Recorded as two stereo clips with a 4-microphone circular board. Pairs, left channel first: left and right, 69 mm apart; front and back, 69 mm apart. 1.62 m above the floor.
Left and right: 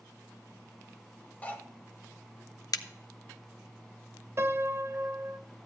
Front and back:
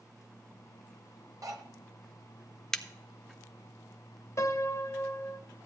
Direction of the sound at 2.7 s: 85° left.